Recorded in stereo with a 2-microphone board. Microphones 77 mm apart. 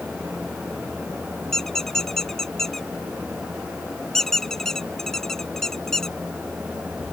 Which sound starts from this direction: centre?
A squeak, at 1.5 s.